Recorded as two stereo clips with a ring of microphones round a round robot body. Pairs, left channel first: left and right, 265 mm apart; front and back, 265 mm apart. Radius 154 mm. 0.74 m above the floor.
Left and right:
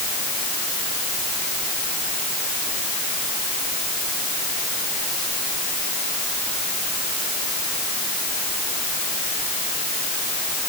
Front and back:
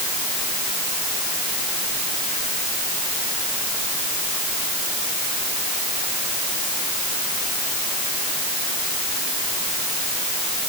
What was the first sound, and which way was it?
Only background noise.